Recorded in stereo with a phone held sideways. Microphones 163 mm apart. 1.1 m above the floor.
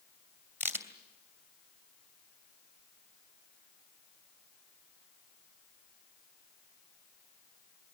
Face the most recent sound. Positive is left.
turn(degrees=-15)  # may be behind; listen again after turning